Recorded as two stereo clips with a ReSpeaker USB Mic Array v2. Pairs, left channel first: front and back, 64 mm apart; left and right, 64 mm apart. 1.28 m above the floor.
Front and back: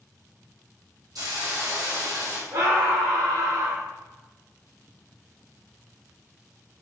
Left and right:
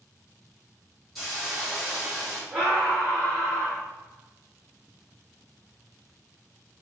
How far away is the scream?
About 1.8 m.